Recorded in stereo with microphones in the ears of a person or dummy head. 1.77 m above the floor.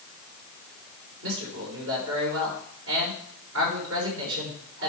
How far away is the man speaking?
About 5 m.